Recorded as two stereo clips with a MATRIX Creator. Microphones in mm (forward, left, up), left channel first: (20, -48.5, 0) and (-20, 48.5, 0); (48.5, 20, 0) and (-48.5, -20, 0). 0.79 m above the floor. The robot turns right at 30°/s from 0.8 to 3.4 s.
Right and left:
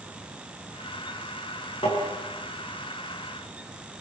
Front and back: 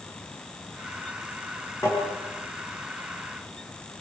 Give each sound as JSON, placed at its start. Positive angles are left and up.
{"t": 1.8, "sound": "tapping", "azimuth_deg": -35, "distance_m": 9.5}